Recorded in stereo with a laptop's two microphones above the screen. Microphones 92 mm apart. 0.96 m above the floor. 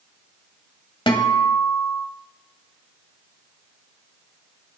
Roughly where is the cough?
No cough in this recording.